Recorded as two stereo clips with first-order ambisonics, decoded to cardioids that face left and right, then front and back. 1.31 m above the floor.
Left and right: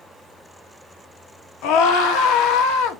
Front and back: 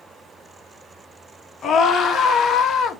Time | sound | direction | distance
1.6 | a scream | 65° left | 1.4 m